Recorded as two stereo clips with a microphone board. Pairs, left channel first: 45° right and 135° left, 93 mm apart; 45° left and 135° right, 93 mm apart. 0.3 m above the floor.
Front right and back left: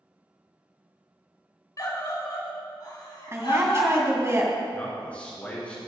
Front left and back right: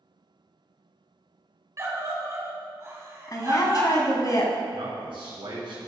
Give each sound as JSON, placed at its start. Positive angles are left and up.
{"t": 1.8, "sound": "a scream", "azimuth_deg": -85, "distance_m": 2.0}
{"t": 3.3, "sound": "a woman speaking", "azimuth_deg": 80, "distance_m": 2.0}
{"t": 4.7, "sound": "a man speaking", "azimuth_deg": -120, "distance_m": 3.0}